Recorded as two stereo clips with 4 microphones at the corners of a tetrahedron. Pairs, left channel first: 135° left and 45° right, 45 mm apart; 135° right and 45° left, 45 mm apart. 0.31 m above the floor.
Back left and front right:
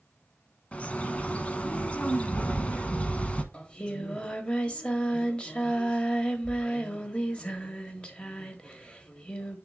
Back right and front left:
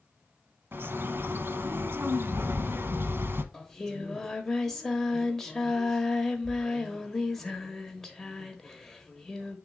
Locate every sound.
0.7 s a bird: 70° left, 1.0 m
3.5 s singing: 150° left, 1.3 m